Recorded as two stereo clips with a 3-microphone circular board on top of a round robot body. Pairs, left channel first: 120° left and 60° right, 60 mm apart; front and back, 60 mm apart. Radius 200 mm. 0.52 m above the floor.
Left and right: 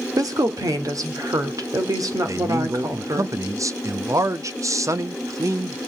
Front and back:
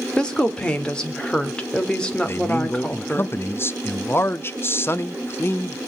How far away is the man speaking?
About 0.9 m.